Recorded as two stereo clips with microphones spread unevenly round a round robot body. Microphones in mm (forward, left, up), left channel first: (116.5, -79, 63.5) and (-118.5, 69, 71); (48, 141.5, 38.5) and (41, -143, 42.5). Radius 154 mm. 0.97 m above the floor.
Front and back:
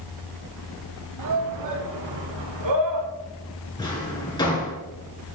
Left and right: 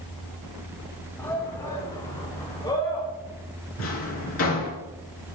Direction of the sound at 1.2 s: 170° left.